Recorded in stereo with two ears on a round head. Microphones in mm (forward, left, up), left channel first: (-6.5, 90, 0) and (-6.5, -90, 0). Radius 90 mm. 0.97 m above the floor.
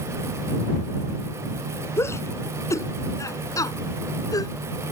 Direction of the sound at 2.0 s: 10° left (ahead or behind).